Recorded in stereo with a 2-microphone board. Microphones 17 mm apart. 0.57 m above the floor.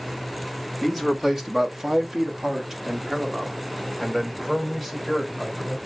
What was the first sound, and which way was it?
A man speaking, 15° right (ahead or behind).